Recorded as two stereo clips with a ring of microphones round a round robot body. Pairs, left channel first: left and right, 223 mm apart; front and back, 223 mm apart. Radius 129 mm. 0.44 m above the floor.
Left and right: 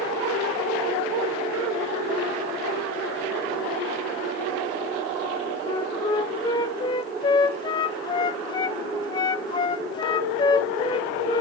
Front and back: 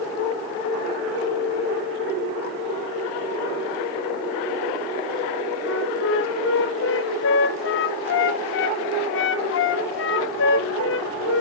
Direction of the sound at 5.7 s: 20° left.